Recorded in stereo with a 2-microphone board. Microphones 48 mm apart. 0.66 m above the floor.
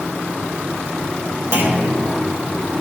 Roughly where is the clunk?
Right.